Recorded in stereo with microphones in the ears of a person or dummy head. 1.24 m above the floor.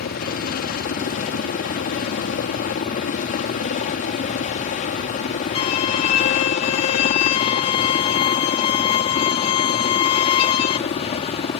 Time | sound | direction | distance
0.0 | a helicopter | 45° left (ahead or behind) | ?
5.5 | a violin | 35° left (ahead or behind) | ?